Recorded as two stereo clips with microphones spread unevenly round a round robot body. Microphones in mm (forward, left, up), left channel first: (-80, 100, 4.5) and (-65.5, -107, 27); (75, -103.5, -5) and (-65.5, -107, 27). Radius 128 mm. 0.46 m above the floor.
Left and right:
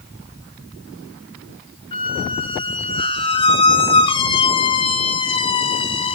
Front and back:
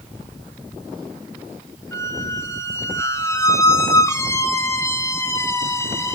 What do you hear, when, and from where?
1.9 s a squeak: 50° left, 0.6 m